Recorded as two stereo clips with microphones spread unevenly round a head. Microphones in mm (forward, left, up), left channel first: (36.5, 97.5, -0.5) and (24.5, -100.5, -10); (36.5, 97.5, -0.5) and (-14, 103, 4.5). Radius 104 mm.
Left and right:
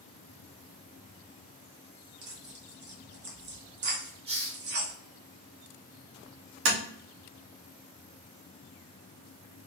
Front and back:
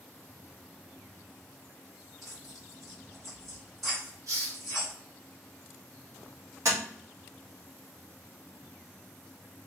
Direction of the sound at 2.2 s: 100° right.